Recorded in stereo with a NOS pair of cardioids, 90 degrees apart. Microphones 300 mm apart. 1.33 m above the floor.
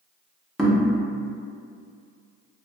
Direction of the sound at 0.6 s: Straight ahead.